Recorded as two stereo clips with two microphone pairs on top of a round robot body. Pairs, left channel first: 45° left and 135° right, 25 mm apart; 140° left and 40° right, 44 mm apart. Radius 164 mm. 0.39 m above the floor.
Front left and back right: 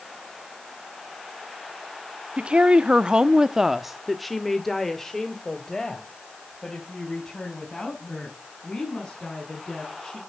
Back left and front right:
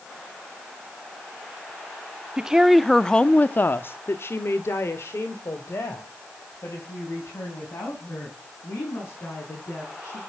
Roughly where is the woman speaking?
Right.